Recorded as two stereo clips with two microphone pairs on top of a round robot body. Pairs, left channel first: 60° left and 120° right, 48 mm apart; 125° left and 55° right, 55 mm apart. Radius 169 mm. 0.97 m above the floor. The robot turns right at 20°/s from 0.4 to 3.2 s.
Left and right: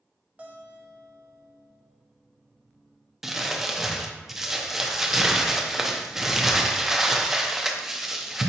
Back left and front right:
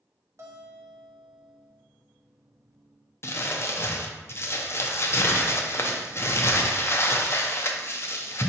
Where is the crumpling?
160° left, 0.7 m.